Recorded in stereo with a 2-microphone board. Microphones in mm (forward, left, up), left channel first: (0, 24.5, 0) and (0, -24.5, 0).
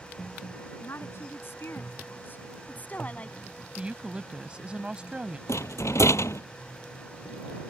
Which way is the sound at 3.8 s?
20° right (ahead or behind).